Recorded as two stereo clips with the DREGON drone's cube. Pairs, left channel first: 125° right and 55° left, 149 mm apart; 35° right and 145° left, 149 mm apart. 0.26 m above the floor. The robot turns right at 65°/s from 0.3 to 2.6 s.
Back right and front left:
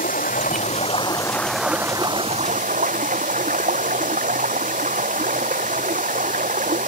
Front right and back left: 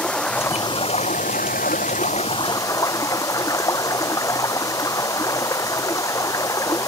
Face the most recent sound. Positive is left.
turn(degrees=35)